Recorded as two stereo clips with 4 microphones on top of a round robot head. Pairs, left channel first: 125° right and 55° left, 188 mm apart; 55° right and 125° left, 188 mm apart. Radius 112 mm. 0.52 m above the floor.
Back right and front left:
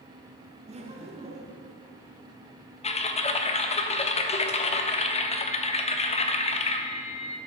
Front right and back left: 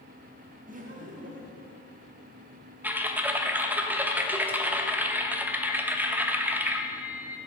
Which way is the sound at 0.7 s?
100° left.